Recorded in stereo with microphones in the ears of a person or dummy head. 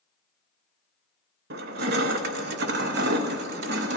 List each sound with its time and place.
1.5 s crushing: 50° right (ahead or behind), 0.6 m